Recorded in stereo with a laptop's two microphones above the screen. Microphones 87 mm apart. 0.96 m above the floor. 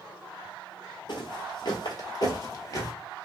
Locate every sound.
1.1 s footsteps: 55° left (ahead or behind), 1.5 m; by 2.9 s 35° left (ahead or behind), 1.5 m